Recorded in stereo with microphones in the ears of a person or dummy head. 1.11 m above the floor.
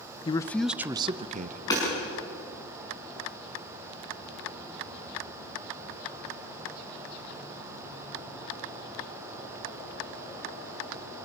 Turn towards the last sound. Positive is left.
turn(degrees=25)  # may be behind; listen again after turning